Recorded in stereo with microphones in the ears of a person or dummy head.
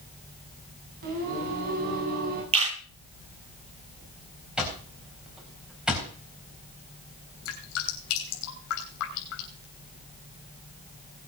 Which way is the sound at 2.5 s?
30° right (ahead or behind).